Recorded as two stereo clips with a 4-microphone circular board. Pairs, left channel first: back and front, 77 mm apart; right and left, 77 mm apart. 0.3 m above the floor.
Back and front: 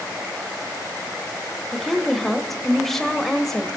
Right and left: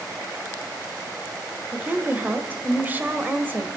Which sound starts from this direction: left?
A woman speaking, at 1.7 s.